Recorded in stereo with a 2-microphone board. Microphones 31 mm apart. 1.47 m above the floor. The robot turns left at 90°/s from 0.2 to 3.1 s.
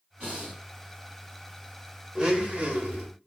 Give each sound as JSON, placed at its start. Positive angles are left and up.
{"t": 0.2, "sound": "breathing", "azimuth_deg": -120, "distance_m": 1.9}
{"t": 2.1, "sound": "a blender", "azimuth_deg": -20, "distance_m": 0.7}